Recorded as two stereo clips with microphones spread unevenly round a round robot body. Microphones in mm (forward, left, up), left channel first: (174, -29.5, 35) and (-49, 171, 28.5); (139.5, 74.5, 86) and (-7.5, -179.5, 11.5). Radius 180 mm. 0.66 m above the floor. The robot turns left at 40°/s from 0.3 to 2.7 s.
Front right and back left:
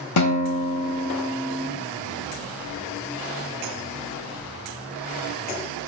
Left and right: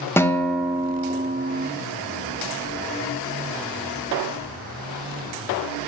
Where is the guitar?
30° right, 0.8 m; by 1.7 s 85° right, 0.8 m.